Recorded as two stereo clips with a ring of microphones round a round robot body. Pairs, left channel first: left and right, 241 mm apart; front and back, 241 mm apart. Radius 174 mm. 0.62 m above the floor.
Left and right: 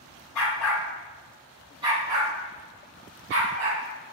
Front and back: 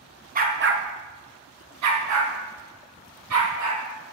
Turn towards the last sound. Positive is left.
turn(degrees=-130)